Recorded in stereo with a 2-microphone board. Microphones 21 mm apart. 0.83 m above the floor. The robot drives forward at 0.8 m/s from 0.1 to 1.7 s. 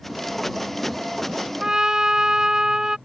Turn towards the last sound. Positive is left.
turn(degrees=-35)  # may be behind; listen again after turning